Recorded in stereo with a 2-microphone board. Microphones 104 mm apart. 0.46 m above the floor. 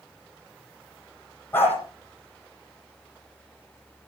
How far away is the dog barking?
About 8.5 m.